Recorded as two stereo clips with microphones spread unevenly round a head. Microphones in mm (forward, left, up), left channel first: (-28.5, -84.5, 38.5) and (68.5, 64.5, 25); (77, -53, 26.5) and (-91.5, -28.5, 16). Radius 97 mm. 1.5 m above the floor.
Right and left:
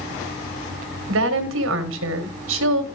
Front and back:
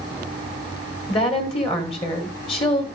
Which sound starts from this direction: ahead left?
A woman speaking, at 1.1 s.